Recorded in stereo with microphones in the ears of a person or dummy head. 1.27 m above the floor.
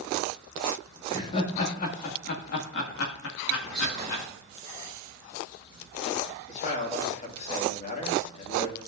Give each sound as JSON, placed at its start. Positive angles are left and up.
{"t": 1.1, "sound": "laughter", "side_deg": 30, "distance_m": 2.5}
{"t": 3.6, "sound": "whispering", "side_deg": -5, "distance_m": 5.0}
{"t": 6.5, "sound": "a man speaking", "side_deg": 50, "distance_m": 1.9}